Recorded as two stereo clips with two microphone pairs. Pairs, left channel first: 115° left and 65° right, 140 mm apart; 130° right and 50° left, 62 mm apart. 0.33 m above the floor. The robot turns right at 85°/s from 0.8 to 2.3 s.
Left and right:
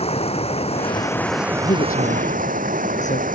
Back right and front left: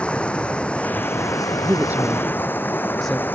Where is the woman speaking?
85° left; by 3.2 s 145° left.